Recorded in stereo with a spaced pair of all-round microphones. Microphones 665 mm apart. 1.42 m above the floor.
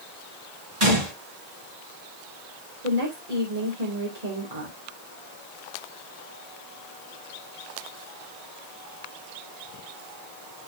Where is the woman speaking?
70° right (ahead or behind), 3 m.